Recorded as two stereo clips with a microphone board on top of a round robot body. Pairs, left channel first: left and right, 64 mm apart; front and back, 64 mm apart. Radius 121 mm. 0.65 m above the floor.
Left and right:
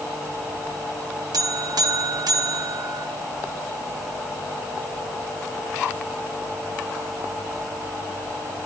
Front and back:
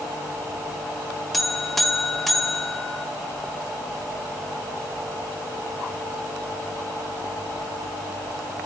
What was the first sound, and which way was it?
A buzzer, 85° right.